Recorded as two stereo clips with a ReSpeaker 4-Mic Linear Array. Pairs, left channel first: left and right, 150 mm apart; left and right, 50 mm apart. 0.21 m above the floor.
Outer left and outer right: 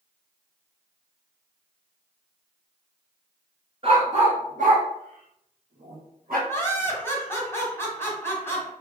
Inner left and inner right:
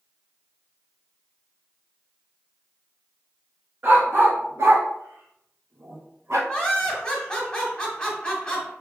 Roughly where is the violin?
No violin in this recording.